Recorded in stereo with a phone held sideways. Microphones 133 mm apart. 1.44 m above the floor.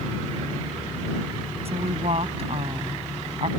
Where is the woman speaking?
50° right (ahead or behind).